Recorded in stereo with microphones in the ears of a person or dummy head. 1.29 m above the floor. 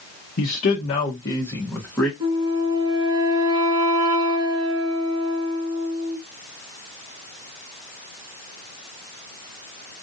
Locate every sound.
0.4 s a man speaking: 50° left (ahead or behind), 0.8 m; by 2.1 s centre (ahead or behind), 1.6 m
2.2 s a flute: 25° right (ahead or behind), 1.9 m